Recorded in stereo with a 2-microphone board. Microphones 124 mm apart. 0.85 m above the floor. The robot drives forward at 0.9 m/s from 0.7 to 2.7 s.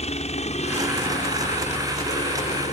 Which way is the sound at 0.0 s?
60° left (ahead or behind).